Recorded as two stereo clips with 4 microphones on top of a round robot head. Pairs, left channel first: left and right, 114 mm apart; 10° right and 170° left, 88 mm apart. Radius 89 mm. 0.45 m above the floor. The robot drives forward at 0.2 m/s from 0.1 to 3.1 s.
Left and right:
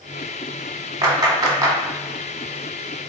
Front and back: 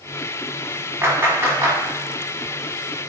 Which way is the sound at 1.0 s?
130° right.